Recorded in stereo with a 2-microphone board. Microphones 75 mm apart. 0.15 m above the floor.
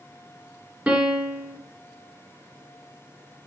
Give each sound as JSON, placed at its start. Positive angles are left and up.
{"t": 0.9, "sound": "a piano", "side_deg": -20, "distance_m": 1.2}